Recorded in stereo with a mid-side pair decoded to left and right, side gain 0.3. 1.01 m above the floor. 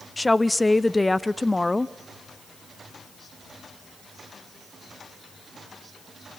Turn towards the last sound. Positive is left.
turn(degrees=20)